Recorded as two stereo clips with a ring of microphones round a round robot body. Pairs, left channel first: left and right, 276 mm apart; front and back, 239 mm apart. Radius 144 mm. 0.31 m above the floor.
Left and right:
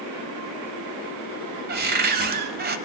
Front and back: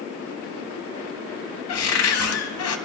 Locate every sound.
1.7 s a cupboard door: 35° right, 0.8 m